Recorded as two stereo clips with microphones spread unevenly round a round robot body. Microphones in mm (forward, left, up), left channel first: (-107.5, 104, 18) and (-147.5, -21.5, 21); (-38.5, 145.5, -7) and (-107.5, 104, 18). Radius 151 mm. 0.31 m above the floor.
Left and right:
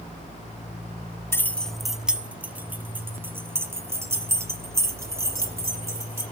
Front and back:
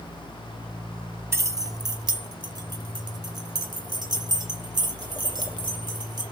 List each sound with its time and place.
1.3 s keys jangling: 140° left, 1.0 m; by 6.2 s 175° right, 7.5 m